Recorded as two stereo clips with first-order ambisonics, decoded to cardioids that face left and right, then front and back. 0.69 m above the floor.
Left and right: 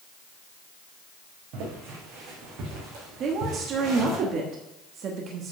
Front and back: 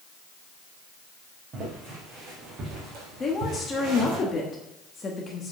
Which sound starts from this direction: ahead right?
A woman speaking, at 3.2 s.